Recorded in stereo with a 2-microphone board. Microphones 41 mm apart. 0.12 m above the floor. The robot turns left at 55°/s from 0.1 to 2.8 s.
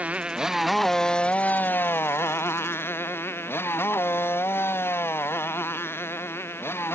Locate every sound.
0.0 s a motorcycle: 35° right (ahead or behind); by 7.0 s 75° left (ahead or behind)